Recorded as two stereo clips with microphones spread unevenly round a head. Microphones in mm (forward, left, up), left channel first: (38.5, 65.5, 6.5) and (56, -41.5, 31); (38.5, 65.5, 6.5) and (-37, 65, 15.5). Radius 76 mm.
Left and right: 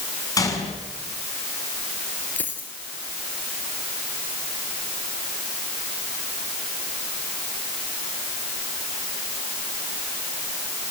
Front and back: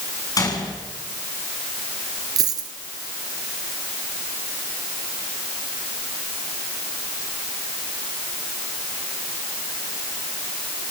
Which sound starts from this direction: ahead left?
A gunshot, at 0.4 s.